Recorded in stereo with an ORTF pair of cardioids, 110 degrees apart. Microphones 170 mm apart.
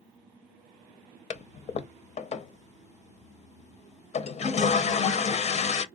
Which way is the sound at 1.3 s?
40° left.